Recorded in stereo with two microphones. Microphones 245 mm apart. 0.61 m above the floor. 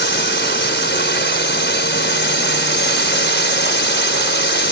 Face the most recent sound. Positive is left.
turn(degrees=45)  # may be behind; listen again after turning